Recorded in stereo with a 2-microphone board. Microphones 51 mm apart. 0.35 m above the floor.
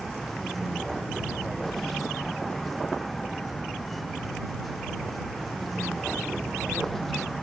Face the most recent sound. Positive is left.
turn(degrees=5)  # may be behind; listen again after turning